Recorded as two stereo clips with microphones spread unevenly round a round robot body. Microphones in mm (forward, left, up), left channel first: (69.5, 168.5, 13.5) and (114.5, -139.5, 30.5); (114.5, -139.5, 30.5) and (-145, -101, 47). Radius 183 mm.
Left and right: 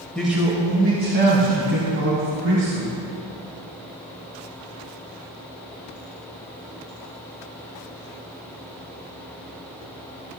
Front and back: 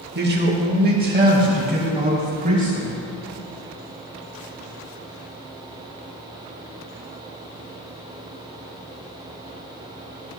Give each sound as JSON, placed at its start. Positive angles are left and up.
{"t": 0.1, "sound": "a man speaking", "azimuth_deg": 180, "distance_m": 1.4}